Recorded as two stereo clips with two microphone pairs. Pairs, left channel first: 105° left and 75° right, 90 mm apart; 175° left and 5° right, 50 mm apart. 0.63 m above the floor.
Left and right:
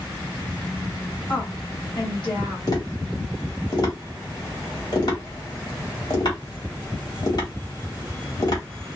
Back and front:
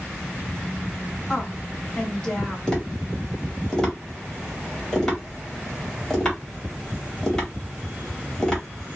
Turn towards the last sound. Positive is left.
turn(degrees=100)